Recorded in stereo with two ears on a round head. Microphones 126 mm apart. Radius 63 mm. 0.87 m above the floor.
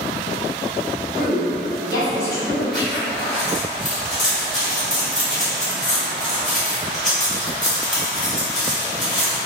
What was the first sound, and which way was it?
A woman speaking, 10° left (ahead or behind).